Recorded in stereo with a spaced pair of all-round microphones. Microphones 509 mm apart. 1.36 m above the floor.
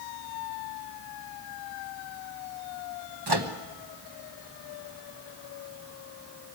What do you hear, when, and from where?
3.3 s a microwave: 50° right (ahead or behind), 1.3 m